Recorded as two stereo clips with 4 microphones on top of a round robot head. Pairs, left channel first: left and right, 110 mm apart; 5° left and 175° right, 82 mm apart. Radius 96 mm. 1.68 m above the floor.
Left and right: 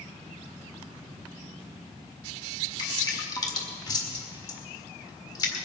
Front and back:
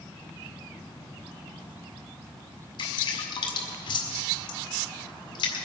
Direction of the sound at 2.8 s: 35° left.